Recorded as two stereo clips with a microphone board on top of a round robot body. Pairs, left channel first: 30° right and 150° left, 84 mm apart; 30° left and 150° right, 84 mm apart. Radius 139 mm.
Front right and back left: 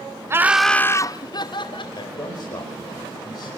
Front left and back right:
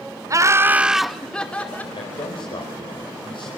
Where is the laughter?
170° right, 0.9 m; by 1.9 s 40° right, 1.9 m.